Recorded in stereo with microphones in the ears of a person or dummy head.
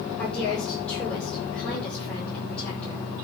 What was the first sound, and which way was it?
A woman speaking, 15° left (ahead or behind).